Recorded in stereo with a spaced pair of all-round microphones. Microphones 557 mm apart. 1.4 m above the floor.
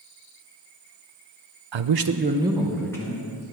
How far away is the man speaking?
About 0.5 m.